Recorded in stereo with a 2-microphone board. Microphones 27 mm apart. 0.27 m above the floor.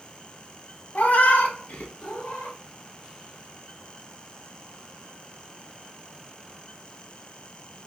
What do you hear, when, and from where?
0.9 s a cat meowing: 60° left (ahead or behind), 0.6 m; by 2.6 s 75° left (ahead or behind), 1.5 m